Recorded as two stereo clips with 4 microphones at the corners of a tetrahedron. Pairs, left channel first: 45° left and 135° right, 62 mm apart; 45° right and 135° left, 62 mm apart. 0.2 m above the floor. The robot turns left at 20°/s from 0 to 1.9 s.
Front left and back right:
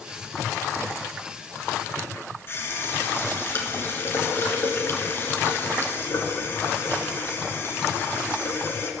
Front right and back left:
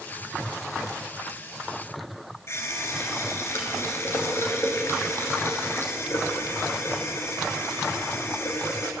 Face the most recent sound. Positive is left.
turn(degrees=0)